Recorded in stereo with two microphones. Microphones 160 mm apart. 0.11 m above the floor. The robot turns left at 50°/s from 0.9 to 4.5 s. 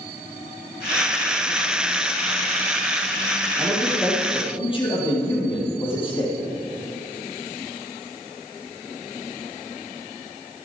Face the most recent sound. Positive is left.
turn(degrees=145)